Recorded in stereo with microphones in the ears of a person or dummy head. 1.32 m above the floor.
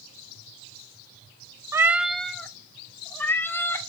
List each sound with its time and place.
1.7 s a cat meowing: 15° right (ahead or behind), 0.7 m; by 3.8 s 15° left (ahead or behind), 3 m